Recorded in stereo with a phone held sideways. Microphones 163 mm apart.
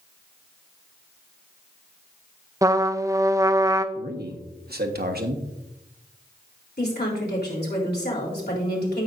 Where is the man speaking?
75° right (ahead or behind), 1.3 m.